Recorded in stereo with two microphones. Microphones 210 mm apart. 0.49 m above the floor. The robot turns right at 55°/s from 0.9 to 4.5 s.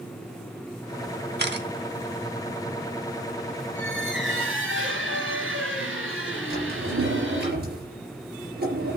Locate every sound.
1.4 s a camera shutter: 50° right (ahead or behind), 0.9 m; by 1.7 s 55° right (ahead or behind), 0.9 m
3.8 s a squeak: 120° right, 3 m; by 7.5 s 75° right, 3 m
6.5 s a drawer: 50° right (ahead or behind), 4 m